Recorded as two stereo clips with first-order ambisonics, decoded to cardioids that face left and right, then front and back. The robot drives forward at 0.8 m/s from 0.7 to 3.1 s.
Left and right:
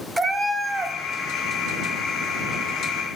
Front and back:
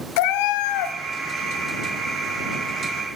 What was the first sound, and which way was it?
A cat meowing, 10° right.